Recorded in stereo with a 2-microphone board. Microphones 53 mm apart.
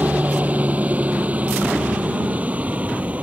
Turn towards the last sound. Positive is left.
turn(degrees=-25)  # may be behind; listen again after turning